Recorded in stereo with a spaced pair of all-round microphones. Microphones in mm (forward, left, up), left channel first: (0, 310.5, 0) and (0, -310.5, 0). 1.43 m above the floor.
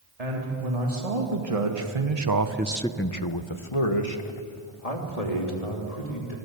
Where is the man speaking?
75° right (ahead or behind), 3.5 m; by 6.3 s 80° left, 5 m.